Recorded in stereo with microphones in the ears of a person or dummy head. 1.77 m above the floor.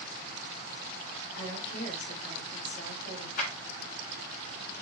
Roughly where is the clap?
Left.